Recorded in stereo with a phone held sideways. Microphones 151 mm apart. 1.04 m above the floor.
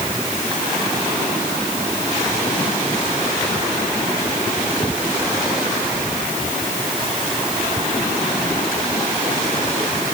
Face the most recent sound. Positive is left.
No sound to turn to.